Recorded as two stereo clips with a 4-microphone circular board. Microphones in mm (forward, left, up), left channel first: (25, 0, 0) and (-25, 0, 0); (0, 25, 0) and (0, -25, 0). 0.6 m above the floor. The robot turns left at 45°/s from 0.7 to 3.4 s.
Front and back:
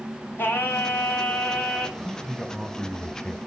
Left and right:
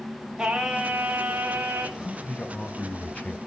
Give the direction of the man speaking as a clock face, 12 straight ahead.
8 o'clock.